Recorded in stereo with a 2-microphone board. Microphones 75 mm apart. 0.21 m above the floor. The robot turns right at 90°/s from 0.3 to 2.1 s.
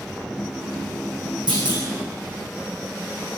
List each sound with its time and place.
1.5 s a clunk: 95° right, 3 m; by 1.8 s 60° right, 3 m